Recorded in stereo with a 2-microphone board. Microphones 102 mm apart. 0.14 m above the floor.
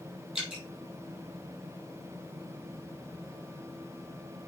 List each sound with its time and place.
0.3 s dripping: 5° right (ahead or behind), 4.5 m